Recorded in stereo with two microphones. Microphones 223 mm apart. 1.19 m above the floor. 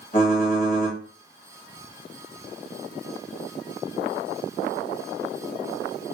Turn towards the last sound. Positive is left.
turn(degrees=40)  # may be behind; listen again after turning